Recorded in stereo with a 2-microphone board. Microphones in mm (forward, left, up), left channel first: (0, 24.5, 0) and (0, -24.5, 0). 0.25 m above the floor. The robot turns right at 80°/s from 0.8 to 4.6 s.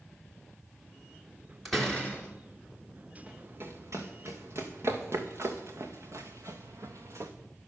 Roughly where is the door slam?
Ahead.